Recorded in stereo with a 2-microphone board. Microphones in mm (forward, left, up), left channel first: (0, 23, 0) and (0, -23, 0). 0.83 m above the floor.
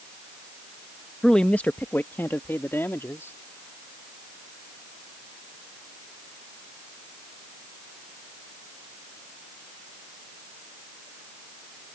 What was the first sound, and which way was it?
A man speaking, 15° left (ahead or behind).